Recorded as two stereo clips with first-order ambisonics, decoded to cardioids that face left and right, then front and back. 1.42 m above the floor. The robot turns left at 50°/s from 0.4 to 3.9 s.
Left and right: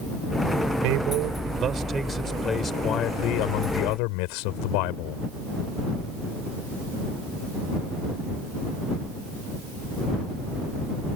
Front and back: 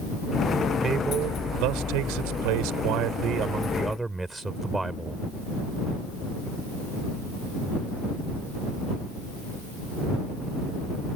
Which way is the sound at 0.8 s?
110° right.